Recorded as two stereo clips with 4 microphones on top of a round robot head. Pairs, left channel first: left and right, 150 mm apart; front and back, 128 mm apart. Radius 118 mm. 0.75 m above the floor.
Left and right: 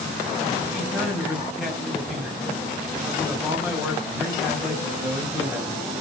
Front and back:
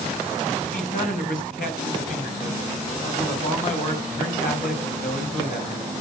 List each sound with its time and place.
0.6 s a man speaking: 5° right, 4.5 m